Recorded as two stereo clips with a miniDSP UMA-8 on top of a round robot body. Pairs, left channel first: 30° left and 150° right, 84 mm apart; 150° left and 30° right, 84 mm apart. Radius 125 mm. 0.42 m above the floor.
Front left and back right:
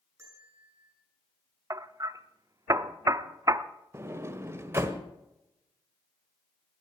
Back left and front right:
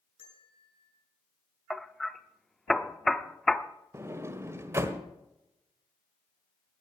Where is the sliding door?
90° right, 1.4 m.